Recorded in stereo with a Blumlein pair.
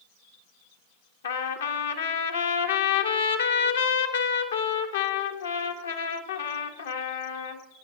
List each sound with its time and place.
1.2 s a trumpet: 65° left, 1.0 m